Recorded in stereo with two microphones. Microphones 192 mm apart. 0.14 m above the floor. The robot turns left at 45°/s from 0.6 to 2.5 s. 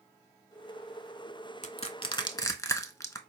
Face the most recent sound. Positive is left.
turn(degrees=15)  # may be behind; listen again after turning